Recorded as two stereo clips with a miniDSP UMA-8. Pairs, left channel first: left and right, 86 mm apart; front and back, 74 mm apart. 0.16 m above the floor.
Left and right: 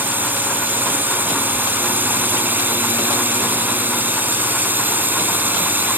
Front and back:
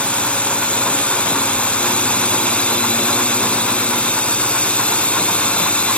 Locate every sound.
0.0 s a drone: 50° right